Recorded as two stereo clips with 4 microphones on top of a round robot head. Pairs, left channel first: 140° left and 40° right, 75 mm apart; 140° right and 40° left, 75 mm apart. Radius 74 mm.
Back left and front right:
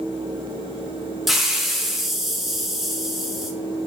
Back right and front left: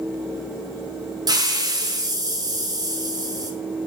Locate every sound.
1.3 s a hiss: 45° left, 0.6 m